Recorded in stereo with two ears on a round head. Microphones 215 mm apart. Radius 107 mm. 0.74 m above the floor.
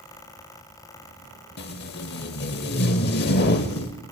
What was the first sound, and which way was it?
Tape being pulled, 45° left (ahead or behind).